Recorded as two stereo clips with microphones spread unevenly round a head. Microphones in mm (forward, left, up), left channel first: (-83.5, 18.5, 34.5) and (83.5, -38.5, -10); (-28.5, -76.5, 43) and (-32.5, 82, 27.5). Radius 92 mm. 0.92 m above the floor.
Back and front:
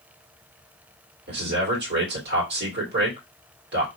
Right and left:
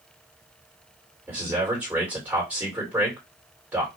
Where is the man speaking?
10° left, 2.5 m.